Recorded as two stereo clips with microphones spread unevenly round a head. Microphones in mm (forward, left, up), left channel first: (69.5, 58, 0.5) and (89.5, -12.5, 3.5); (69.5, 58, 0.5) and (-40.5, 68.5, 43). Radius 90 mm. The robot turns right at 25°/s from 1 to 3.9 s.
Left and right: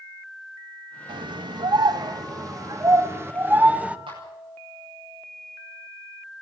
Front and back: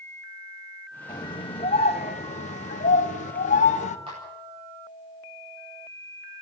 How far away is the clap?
About 9.5 m.